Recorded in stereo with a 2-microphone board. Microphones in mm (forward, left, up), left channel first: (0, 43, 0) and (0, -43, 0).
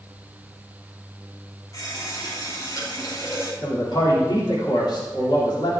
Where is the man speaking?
60° left (ahead or behind), 3.5 m.